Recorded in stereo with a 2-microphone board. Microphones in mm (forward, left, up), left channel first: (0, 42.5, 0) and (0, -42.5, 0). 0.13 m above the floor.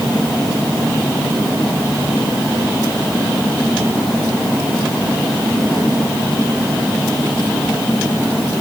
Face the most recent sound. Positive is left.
No sound to turn to.